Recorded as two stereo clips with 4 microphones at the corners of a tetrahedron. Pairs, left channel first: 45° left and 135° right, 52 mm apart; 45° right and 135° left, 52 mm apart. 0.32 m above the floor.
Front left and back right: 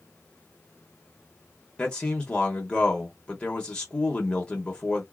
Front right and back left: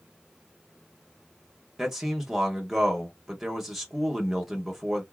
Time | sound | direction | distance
1.8 | a man speaking | 70° left | 0.9 m